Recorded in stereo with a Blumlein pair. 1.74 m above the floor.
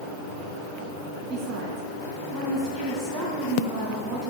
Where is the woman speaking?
20° right, 2.5 m.